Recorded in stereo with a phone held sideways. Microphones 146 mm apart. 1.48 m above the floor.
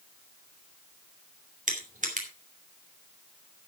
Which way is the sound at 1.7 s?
60° right (ahead or behind).